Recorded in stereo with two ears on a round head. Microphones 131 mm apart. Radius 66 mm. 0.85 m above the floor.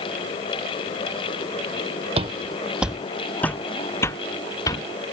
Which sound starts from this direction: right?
Footsteps, at 2.2 s.